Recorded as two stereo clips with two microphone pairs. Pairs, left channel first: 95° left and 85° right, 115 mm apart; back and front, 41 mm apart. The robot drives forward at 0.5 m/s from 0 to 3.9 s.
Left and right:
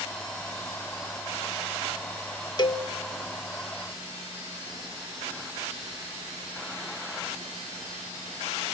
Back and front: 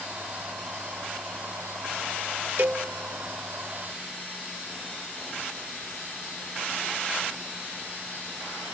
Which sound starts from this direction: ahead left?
A cowbell, at 2.6 s.